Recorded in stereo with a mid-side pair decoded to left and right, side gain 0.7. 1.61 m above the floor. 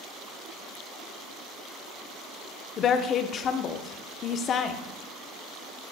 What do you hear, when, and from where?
2.8 s a woman speaking: 40° left, 1.0 m